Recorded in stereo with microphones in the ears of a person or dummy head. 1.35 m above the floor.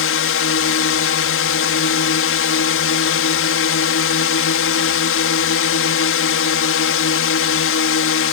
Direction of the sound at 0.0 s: 65° left (ahead or behind).